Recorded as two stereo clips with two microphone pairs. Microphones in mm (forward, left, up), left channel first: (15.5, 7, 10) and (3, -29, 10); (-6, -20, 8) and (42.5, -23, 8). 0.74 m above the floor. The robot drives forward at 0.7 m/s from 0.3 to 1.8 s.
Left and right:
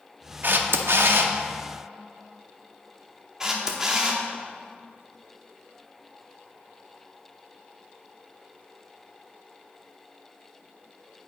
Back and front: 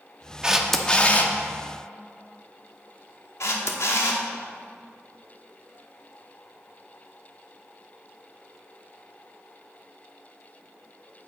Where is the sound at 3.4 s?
175° left, 0.9 m.